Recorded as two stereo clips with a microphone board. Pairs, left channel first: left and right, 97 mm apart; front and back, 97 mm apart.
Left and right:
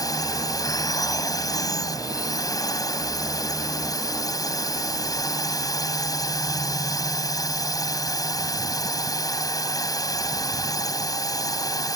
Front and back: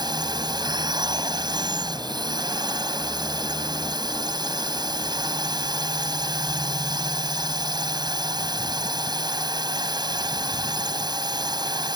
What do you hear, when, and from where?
0.0 s a drone: 140° left